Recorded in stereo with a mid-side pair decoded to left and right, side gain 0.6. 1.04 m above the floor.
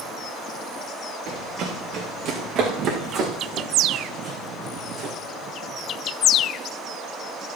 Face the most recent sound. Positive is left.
turn(degrees=-45)